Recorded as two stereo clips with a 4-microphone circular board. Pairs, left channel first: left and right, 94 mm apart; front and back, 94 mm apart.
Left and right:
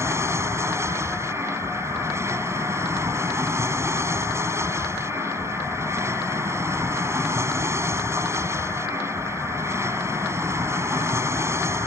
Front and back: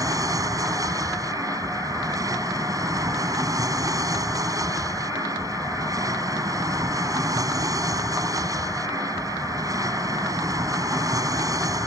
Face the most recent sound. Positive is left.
turn(degrees=-140)